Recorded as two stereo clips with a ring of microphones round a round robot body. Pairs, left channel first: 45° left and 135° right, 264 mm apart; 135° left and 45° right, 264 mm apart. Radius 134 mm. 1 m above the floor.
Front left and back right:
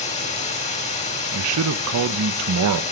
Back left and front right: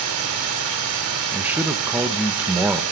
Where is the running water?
20° right, 3 m.